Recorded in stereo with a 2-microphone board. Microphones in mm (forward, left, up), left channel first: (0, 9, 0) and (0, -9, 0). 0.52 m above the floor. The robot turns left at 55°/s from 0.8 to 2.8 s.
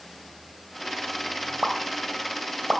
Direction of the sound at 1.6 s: 60° right (ahead or behind).